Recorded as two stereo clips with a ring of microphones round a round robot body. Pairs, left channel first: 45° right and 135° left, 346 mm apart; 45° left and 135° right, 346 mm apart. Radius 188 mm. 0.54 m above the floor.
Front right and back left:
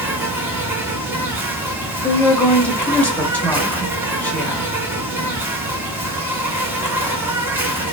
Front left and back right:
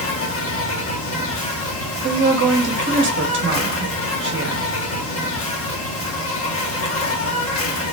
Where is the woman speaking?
125° right, 0.7 m.